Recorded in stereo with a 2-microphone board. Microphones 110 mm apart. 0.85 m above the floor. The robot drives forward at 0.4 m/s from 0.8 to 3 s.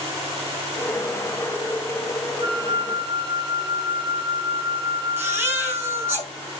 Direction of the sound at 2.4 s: 40° right (ahead or behind).